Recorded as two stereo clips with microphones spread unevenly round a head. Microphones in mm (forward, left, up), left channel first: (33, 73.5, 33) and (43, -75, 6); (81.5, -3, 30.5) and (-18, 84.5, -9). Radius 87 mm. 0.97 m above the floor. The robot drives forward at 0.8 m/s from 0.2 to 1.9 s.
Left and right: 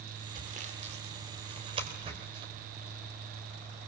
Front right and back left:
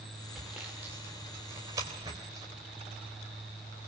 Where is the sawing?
130° right, 2 m; by 2.5 s 150° right, 3 m.